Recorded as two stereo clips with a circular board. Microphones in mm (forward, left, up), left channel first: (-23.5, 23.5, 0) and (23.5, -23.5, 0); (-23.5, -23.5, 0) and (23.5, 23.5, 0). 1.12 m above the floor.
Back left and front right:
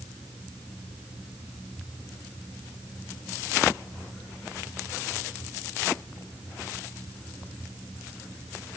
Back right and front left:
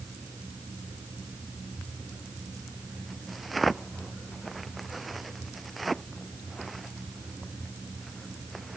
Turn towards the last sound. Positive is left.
No sound to turn to.